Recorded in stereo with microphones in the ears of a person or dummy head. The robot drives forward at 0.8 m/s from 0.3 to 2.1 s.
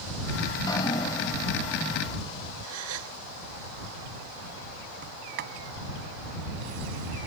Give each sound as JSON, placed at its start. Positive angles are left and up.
{"t": 0.5, "sound": "dripping", "side_deg": 25}
{"t": 2.6, "sound": "a gasp", "side_deg": -85}
{"t": 5.0, "sound": "a sliding door", "side_deg": -50}